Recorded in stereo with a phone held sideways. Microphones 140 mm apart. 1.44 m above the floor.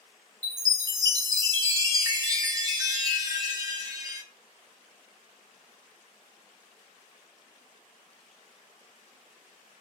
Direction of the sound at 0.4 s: 25° right (ahead or behind).